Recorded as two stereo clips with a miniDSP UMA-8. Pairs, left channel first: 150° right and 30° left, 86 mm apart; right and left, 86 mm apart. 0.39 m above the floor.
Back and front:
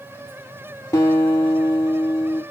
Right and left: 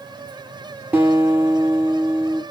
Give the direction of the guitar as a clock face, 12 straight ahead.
7 o'clock.